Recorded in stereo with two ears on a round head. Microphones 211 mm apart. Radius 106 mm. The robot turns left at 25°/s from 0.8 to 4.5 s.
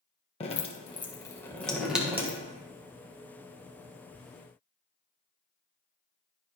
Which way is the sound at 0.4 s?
25° left (ahead or behind).